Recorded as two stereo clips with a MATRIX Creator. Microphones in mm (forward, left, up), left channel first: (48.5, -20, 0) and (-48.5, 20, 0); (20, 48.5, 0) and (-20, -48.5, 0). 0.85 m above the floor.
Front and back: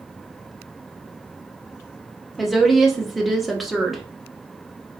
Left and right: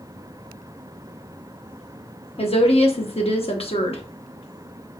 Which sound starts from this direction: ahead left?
A woman speaking, at 2.4 s.